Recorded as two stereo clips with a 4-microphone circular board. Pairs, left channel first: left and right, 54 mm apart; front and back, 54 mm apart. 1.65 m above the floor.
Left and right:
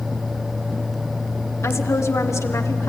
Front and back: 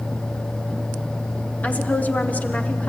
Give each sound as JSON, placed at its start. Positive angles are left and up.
{"t": 1.6, "sound": "a woman speaking", "azimuth_deg": 60, "distance_m": 1.5}